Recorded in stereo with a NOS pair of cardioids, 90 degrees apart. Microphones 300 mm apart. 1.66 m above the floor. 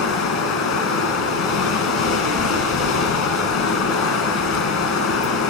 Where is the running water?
65° left, 1.8 m.